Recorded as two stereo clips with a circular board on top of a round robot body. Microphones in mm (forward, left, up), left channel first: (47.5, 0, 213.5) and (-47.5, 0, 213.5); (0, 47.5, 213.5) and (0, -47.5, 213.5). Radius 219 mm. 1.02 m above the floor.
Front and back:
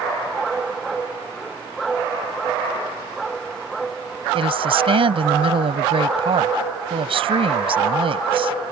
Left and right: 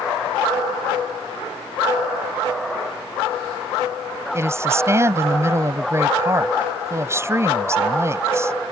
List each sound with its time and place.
4.3 s a woman speaking: 155° right